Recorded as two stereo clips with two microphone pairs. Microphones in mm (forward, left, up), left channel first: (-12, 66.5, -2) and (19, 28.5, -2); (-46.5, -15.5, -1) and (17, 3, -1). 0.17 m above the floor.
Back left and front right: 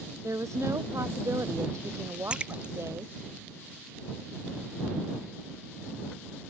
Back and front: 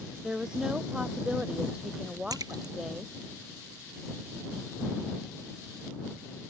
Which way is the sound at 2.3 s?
20° left.